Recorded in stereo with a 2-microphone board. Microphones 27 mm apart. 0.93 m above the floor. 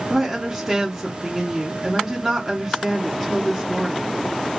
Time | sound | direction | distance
0.1 | a woman speaking | 5° right (ahead or behind) | 1.0 m